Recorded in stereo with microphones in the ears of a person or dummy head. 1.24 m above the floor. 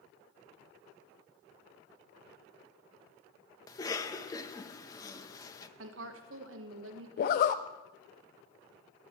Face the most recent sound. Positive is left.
turn(degrees=45)  # may be behind; listen again after turning